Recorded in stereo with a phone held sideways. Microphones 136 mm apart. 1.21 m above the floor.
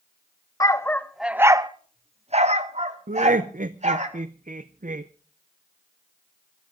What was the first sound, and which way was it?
A dog barking, 25° left (ahead or behind).